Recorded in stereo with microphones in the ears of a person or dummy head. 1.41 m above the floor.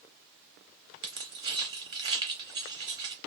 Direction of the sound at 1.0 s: 20° right (ahead or behind).